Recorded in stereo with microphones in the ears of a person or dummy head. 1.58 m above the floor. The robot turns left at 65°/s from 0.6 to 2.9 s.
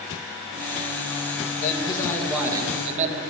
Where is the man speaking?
45° left, 2 m; by 3.2 s 40° right, 2 m.